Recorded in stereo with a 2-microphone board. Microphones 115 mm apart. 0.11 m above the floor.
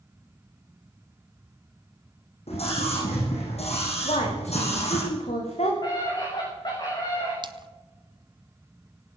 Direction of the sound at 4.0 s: 80° left.